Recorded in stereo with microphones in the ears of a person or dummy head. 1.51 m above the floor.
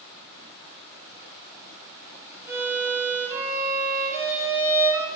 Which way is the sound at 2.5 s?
15° right (ahead or behind).